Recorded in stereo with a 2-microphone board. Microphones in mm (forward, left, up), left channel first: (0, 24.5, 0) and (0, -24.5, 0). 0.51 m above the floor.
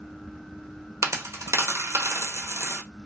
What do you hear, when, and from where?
1.0 s a dropped coin: 80° right, 0.5 m